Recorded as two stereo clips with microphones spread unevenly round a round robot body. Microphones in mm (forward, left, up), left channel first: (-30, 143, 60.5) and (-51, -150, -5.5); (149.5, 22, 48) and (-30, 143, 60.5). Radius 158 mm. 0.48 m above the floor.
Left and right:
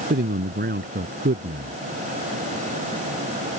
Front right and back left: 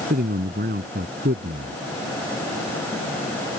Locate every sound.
0.1 s a man speaking: 155° right